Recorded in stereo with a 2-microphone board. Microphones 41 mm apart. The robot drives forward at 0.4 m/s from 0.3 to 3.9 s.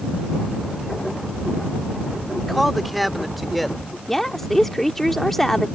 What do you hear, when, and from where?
2.4 s a man speaking: centre (ahead or behind)
4.1 s a woman speaking: 5° left (ahead or behind)